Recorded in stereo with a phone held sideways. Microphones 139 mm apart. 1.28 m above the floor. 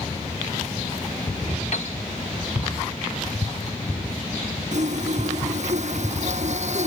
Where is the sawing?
55° right (ahead or behind).